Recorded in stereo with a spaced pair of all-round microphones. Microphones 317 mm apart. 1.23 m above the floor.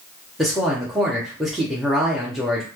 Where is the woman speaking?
Centre (ahead or behind), 0.8 m.